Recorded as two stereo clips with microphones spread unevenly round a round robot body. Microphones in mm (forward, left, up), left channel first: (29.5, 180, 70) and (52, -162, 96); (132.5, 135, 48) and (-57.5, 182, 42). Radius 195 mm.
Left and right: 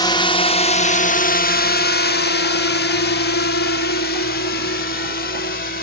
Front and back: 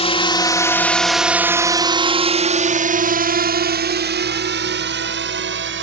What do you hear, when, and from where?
0.0 s a drone: 25° left; by 5.8 s 155° left